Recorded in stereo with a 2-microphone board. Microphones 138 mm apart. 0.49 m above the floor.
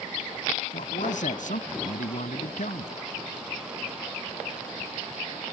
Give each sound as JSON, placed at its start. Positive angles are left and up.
{"t": 0.7, "sound": "a man speaking", "side_deg": 70}